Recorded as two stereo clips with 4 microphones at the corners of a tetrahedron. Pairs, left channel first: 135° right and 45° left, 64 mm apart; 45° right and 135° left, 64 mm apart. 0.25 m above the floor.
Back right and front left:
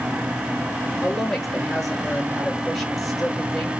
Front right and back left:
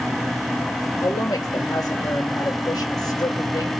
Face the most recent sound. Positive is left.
turn(degrees=-50)